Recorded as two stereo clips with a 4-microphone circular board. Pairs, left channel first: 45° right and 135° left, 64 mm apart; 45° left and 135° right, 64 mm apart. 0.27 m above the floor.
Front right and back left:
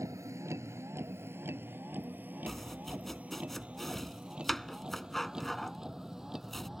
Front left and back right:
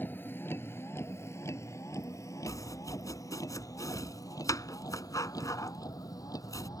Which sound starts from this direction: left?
A vehicle, at 0.0 s.